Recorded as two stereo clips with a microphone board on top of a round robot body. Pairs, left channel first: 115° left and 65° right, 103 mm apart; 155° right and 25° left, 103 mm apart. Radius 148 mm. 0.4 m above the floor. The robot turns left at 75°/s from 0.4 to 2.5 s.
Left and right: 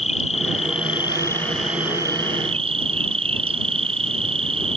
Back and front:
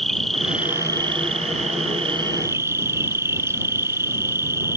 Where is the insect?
115° left; by 4.8 s 45° right.